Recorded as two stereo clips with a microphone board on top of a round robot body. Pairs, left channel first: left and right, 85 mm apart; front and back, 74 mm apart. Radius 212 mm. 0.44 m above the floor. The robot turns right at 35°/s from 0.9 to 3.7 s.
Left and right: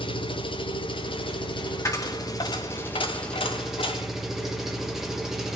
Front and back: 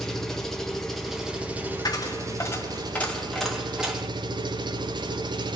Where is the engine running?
85° left, 1.6 m; by 5.6 s 175° right, 1.6 m.